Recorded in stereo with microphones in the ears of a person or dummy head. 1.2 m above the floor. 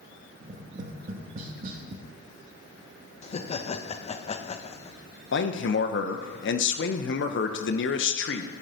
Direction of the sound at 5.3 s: 60° left (ahead or behind).